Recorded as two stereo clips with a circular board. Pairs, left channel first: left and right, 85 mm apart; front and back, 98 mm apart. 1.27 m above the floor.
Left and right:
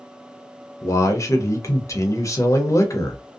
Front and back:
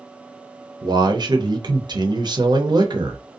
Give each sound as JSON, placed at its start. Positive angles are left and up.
{"t": 0.8, "sound": "a man speaking", "azimuth_deg": 140, "distance_m": 0.7}